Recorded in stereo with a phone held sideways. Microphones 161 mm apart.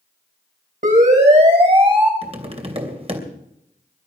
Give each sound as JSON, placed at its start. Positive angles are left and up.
{"t": 0.8, "sound": "a siren", "side_deg": -50, "distance_m": 4.0}
{"t": 2.2, "sound": "tapping", "side_deg": -40, "distance_m": 2.5}